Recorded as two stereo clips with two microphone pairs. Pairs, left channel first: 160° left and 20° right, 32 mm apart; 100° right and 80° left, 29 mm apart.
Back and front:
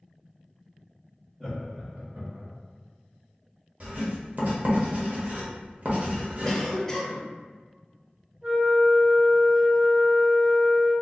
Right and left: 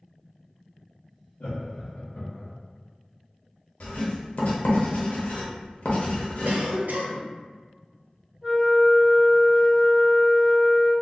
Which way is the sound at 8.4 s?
40° left.